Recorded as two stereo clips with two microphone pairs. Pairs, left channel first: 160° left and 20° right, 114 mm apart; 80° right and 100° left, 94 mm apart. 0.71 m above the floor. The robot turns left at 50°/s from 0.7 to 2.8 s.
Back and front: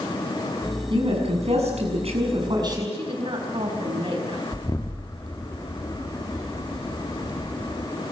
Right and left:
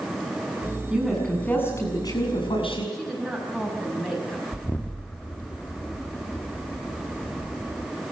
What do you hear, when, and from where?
0.9 s a woman speaking: 20° left, 6.5 m; by 2.8 s 75° right, 6.5 m
2.9 s a woman speaking: 5° left, 4.5 m
4.5 s an explosion: 145° right, 1.4 m